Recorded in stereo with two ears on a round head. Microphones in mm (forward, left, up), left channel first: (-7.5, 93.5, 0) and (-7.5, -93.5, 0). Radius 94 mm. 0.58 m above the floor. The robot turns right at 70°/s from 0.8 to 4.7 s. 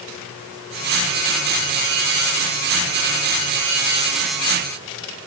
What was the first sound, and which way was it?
Only background noise.